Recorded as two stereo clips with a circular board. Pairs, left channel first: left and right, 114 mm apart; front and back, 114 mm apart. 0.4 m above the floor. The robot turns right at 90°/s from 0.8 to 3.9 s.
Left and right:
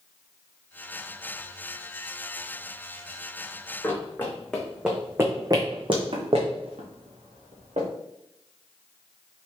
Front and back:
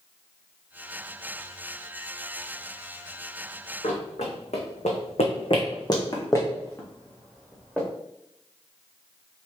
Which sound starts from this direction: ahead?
Running footsteps, at 3.8 s.